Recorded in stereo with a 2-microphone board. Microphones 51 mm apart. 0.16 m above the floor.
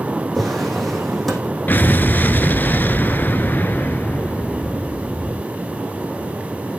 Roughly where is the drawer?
Centre.